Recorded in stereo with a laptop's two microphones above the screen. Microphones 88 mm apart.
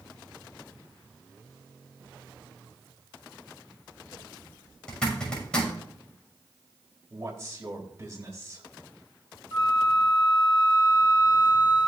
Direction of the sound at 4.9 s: 10° left (ahead or behind).